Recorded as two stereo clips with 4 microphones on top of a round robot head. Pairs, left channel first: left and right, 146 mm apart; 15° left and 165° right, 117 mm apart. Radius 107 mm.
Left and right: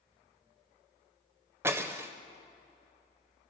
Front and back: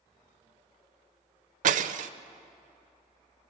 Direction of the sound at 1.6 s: 165° right.